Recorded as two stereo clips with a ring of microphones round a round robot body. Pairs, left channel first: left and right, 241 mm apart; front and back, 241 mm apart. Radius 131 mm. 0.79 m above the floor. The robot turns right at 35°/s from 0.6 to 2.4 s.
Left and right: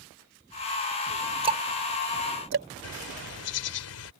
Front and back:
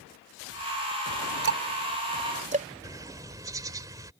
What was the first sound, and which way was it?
Ticking, 155° right.